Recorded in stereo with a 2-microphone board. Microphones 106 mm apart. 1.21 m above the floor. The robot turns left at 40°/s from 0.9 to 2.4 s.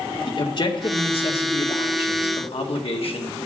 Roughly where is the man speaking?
Behind left.